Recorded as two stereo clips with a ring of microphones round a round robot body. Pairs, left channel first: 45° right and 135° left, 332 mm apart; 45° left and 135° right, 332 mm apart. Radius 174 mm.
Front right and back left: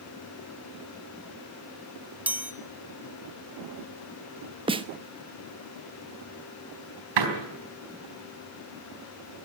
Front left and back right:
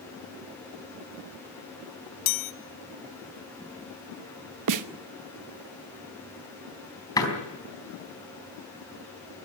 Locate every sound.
2.3 s a chime: 50° left, 1.3 m
4.7 s a snare drum: 150° right, 1.0 m
7.2 s a door slam: 125° left, 4 m